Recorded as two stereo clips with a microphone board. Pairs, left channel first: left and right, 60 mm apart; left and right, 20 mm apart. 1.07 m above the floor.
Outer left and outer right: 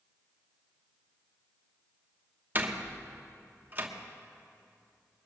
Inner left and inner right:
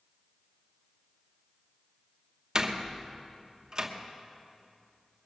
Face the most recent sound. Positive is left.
turn(degrees=-35)  # may be behind; listen again after turning